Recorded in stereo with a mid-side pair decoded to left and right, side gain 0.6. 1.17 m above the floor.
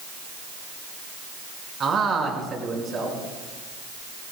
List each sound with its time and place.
1.8 s a man speaking: 35° right, 5.5 m